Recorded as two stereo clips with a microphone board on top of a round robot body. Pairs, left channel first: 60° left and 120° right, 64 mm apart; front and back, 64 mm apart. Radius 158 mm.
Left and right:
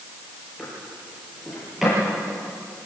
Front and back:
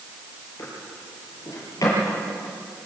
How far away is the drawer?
About 6.5 m.